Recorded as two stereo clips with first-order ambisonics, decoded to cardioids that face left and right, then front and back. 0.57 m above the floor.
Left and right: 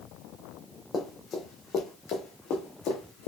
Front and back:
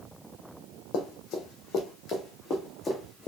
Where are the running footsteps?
20° left, 1.2 m; by 3.3 s 65° left, 1.8 m.